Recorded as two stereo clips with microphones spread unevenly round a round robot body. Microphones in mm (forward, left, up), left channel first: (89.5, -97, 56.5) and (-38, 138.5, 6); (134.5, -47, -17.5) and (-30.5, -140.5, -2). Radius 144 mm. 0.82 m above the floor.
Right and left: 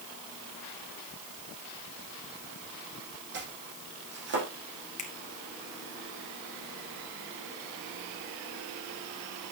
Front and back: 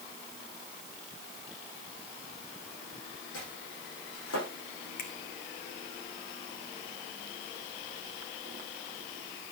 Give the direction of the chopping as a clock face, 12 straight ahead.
10 o'clock.